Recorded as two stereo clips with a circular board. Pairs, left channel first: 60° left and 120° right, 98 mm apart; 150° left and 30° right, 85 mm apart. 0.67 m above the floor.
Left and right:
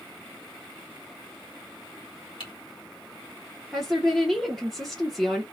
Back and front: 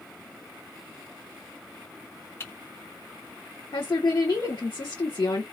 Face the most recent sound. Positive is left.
turn(degrees=150)